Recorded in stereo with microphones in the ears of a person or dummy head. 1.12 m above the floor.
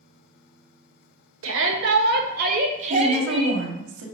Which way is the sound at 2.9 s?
85° right.